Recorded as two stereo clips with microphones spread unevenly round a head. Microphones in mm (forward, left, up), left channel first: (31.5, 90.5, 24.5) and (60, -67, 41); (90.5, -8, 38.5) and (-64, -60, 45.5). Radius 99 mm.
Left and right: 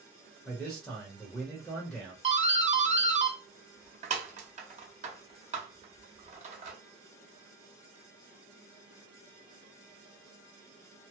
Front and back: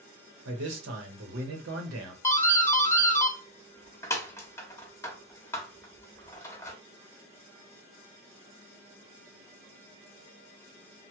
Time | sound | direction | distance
0.5 | a man speaking | 170° right | 0.8 m
2.2 | a doorbell | 45° right | 1.0 m